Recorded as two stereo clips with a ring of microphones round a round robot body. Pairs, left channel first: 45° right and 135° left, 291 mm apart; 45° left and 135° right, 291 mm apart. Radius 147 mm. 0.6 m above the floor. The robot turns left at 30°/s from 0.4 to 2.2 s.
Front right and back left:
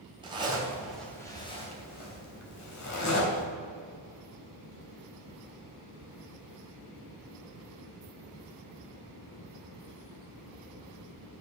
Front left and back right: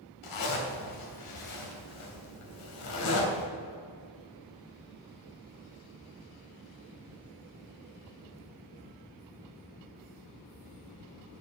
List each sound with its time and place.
0.2 s a zipper: 60° left, 3 m; by 3.5 s 5° left, 3 m